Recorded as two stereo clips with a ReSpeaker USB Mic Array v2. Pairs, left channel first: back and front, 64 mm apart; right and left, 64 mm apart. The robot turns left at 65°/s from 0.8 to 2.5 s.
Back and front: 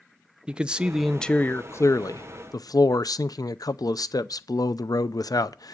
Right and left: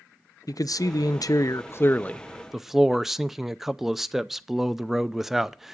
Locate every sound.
0.5 s a man speaking: 75° right, 0.5 m; by 5.7 s 175° left, 0.5 m